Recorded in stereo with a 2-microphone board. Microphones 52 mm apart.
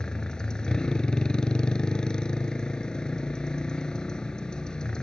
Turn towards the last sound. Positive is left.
turn(degrees=15)  # may be behind; listen again after turning